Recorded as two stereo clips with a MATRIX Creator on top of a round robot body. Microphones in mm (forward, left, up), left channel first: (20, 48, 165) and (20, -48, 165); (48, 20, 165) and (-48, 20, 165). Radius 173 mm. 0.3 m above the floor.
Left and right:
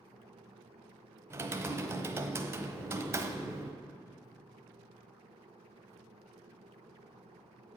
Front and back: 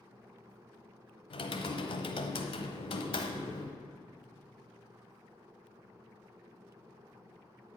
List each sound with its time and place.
1.3 s typing on a keyboard: 25° right, 1.1 m